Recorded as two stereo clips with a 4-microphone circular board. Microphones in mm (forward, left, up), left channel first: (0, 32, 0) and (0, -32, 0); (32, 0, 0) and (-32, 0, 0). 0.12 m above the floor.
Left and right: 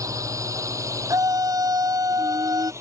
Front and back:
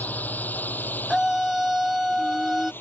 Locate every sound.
0.0 s a drone: 65° right; by 2.8 s 55° right
1.1 s a scream: 95° right